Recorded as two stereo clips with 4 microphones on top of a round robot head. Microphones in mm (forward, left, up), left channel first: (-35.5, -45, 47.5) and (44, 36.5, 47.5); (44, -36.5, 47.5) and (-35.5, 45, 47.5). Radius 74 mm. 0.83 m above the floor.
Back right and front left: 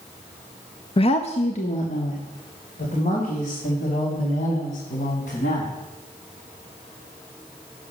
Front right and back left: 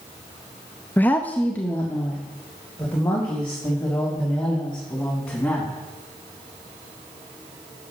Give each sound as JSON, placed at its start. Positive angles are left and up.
{"t": 1.0, "sound": "a woman speaking", "azimuth_deg": -115, "distance_m": 0.7}